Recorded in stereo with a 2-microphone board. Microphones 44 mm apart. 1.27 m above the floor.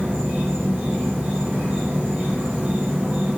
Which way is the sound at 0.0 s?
35° right (ahead or behind).